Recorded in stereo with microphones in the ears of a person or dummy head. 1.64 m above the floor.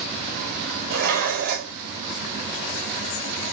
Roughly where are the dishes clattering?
Right.